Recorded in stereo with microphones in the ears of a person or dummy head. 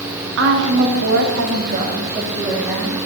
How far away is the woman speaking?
About 1.9 m.